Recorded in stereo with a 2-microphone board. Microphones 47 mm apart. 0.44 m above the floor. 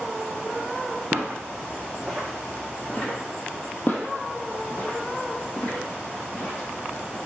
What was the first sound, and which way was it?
Footsteps, 55° right (ahead or behind).